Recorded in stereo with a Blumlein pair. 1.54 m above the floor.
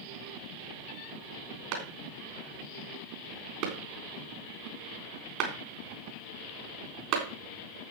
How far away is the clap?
About 3.5 m.